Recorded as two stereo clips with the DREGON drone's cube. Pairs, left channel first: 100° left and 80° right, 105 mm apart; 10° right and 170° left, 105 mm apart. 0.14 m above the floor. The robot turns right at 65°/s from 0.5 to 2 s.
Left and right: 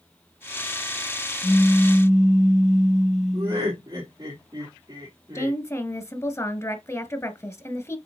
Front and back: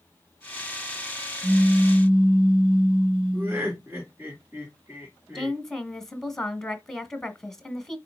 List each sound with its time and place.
1.4 s a pop: 155° left, 1.0 m; by 3.8 s 170° right, 1.0 m
3.3 s laughter: 120° right, 3.5 m
5.3 s a woman speaking: 70° left, 1.5 m